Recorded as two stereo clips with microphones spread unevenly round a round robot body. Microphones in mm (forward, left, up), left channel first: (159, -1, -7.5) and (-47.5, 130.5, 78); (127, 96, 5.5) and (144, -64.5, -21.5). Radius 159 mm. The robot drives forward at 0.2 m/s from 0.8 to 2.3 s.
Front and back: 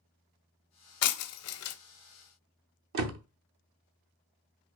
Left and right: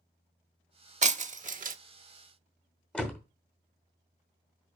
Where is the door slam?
170° right, 0.8 m.